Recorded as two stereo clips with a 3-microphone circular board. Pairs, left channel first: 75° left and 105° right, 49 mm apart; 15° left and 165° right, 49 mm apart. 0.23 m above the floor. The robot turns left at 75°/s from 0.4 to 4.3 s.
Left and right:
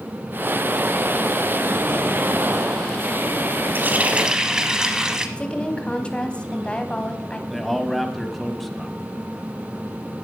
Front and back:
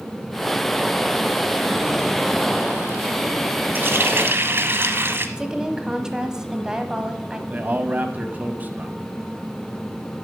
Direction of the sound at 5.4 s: 130° left.